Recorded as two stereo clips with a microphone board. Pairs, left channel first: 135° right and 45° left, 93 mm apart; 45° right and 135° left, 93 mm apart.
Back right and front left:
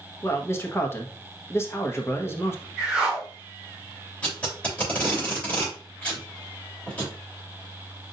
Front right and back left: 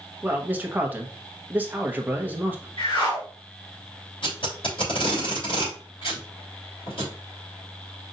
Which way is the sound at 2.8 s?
40° right.